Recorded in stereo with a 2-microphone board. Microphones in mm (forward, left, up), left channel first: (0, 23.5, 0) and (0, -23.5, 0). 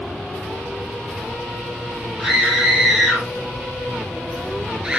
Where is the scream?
5° right (ahead or behind), 6 m; by 5.0 s 20° right (ahead or behind), 3 m.